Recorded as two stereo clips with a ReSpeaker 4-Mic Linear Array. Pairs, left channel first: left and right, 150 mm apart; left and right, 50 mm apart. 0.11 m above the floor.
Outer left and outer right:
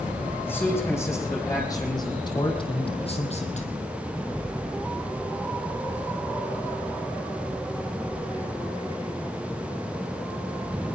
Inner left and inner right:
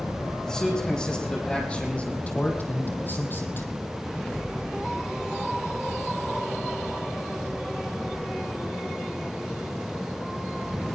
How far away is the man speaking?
About 5 m.